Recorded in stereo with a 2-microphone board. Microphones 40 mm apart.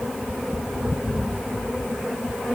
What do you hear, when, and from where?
Only background noise.